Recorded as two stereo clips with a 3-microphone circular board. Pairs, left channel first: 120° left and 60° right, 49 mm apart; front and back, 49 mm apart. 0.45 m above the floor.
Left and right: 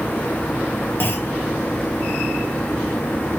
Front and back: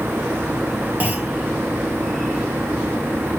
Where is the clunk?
140° left, 0.8 m.